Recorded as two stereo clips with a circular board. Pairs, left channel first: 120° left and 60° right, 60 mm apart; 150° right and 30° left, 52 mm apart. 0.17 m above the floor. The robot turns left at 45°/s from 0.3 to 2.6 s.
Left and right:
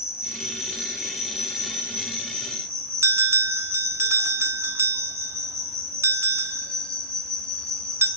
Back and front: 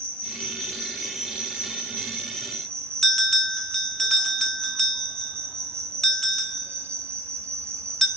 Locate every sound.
0.0 s an insect: 145° left, 1.1 m; by 8.2 s 40° left, 1.1 m
3.0 s a bell: 65° right, 0.5 m